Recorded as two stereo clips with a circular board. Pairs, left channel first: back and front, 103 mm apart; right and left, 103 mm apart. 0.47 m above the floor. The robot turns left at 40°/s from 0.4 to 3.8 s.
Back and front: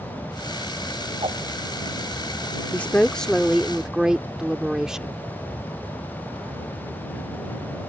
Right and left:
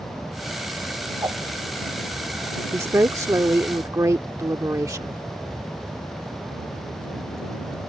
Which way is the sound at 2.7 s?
120° left.